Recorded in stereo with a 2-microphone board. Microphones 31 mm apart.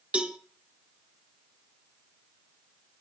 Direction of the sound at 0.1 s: 45° right (ahead or behind).